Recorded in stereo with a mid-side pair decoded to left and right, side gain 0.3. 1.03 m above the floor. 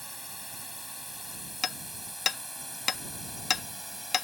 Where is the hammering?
55° left.